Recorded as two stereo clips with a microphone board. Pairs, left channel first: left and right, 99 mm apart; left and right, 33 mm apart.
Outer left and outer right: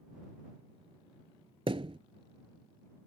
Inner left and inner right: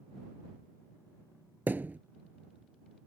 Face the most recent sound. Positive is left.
turn(degrees=-70)  # may be behind; listen again after turning